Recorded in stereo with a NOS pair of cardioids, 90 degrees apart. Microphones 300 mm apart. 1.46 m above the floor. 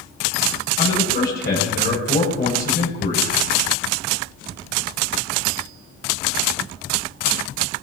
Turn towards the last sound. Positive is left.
turn(degrees=35)